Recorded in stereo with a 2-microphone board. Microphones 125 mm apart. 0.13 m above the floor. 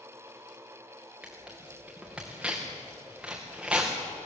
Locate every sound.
1.2 s tearing paper: 5° right (ahead or behind), 4.5 m